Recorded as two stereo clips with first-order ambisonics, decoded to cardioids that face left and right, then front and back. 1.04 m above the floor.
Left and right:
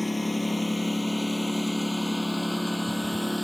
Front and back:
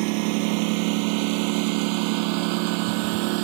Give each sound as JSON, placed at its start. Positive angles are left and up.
{"t": 0.0, "sound": "a lawn mower", "azimuth_deg": 175}